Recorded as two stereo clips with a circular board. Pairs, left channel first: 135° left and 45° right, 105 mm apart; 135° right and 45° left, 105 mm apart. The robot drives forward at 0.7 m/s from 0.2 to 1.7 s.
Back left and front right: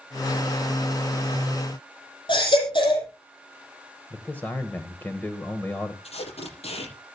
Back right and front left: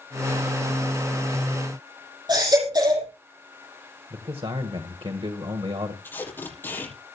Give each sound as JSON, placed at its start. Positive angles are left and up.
{"t": 2.3, "sound": "a baby crying", "azimuth_deg": 95, "distance_m": 6.0}
{"t": 4.1, "sound": "a man speaking", "azimuth_deg": 65, "distance_m": 1.7}
{"t": 6.0, "sound": "tape being pulled", "azimuth_deg": 155, "distance_m": 6.5}